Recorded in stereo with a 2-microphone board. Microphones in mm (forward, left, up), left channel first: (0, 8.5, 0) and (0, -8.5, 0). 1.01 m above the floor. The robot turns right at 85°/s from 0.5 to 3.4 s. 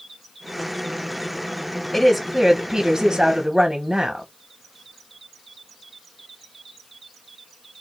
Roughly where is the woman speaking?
Behind.